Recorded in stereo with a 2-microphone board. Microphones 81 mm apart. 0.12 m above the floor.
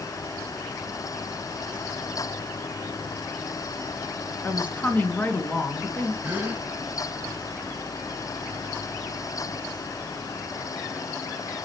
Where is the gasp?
20° right (ahead or behind), 1.5 m.